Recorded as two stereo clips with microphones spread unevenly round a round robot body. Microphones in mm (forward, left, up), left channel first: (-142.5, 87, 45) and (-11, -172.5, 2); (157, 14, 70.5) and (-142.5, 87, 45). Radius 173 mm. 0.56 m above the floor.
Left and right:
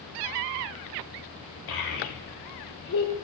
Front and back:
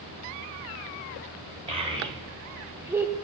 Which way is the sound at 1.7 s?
95° left.